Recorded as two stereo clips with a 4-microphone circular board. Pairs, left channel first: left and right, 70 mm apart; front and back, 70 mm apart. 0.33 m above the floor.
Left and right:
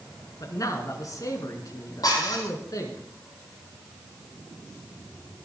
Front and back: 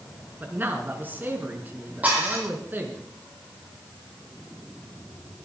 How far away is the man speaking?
About 4 m.